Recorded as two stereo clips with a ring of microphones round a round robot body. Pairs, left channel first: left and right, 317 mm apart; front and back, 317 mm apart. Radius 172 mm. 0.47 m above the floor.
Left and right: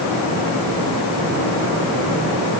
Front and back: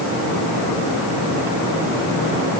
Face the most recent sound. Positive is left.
No sound to turn to.